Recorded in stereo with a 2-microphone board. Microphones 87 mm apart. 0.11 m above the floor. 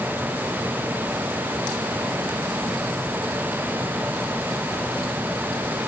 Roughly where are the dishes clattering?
I don't hear dishes clattering.